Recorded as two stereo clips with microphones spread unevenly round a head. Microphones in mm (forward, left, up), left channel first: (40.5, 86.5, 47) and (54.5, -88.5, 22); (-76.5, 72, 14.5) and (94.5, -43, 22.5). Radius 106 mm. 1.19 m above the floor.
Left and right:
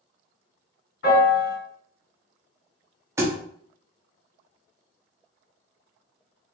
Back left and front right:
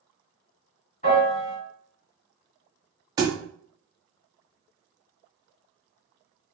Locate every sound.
1.0 s a piano: 90° left, 2.0 m
3.2 s a thud: 15° right, 0.5 m